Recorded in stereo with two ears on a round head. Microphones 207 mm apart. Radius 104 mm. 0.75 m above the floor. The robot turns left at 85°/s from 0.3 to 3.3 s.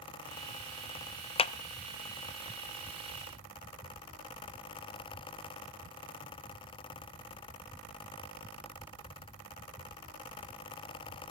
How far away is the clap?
About 0.6 m.